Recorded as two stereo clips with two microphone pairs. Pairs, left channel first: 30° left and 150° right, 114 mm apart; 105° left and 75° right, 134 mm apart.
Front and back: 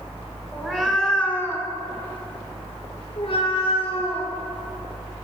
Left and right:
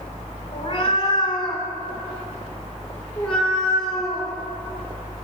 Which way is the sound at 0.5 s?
130° left.